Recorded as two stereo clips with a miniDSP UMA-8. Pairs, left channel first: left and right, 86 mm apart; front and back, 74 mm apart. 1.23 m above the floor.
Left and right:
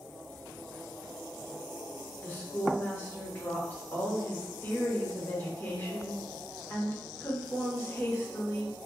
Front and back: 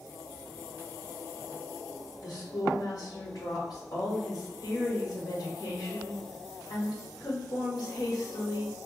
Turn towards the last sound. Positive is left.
turn(degrees=25)